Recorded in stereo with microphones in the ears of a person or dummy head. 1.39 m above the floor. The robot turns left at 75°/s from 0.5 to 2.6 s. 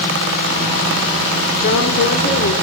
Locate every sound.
1.6 s a woman speaking: 130° left, 3.5 m; by 2.5 s 60° left, 3.5 m